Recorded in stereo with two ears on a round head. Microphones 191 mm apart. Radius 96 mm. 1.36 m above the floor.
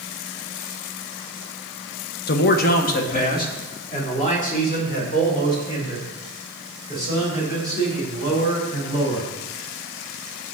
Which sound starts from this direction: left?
A man speaking, at 2.3 s.